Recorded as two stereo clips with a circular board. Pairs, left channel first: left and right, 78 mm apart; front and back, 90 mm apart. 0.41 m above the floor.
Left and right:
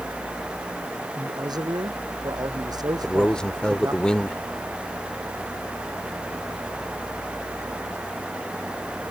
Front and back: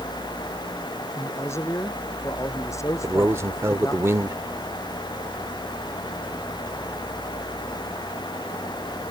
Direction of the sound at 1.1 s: 60° right.